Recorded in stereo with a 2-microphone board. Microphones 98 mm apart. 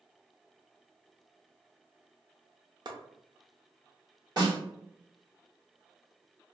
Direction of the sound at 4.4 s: 45° right (ahead or behind).